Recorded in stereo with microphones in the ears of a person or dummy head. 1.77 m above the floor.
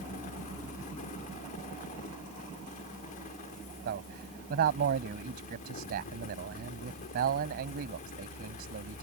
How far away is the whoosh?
No whoosh in this recording.